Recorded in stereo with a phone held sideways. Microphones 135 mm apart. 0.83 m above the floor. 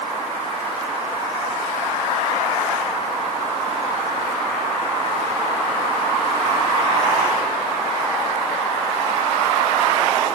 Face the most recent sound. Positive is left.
No sound to turn to.